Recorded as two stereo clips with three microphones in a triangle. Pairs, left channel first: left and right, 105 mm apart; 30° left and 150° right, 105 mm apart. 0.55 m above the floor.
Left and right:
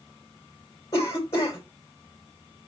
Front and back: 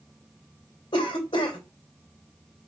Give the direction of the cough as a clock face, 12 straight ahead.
11 o'clock.